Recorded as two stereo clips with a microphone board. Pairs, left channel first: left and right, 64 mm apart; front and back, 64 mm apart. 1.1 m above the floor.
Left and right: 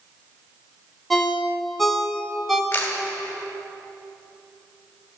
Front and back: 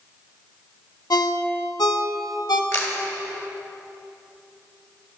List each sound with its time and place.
1.1 s a ringtone: straight ahead, 0.9 m
2.7 s a camera shutter: 30° left, 2 m